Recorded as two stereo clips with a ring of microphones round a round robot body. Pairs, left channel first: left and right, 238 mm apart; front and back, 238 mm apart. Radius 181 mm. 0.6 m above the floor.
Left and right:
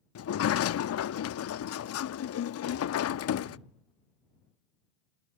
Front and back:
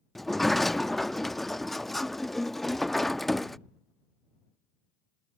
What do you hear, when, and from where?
0.1 s a sliding door: 90° left